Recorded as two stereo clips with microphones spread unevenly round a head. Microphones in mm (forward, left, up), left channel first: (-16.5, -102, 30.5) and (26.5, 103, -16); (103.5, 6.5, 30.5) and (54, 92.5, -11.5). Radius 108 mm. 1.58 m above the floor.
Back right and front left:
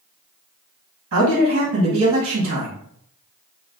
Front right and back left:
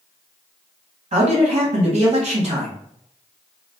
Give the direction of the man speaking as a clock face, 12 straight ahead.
8 o'clock.